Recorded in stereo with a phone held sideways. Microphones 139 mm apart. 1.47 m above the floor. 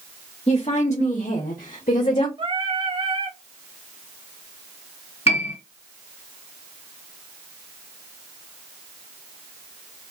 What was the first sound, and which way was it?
A woman speaking, 50° left (ahead or behind).